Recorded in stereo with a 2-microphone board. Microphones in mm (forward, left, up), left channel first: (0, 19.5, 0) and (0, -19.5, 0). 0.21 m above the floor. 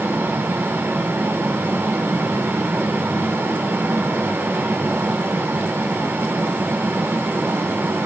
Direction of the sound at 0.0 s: 70° right (ahead or behind).